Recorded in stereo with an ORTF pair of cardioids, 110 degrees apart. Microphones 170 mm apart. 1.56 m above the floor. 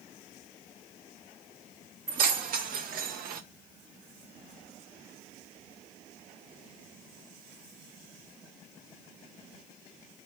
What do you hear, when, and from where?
2.1 s keys jangling: 55° right, 2 m; by 3.4 s 70° right, 1.2 m